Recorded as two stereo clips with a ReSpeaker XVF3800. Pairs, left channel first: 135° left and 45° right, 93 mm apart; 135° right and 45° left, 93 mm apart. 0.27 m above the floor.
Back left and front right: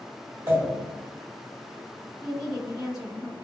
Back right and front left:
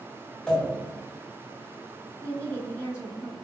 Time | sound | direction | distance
0.5 | a pop | 70° right | 1.6 m
2.2 | a woman speaking | 115° right | 1.7 m